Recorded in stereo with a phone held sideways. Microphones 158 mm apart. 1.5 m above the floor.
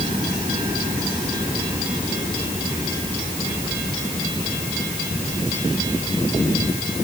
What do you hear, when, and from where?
Only background noise.